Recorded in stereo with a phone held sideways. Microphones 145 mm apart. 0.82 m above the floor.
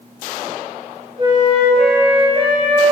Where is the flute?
35° right (ahead or behind), 0.7 m.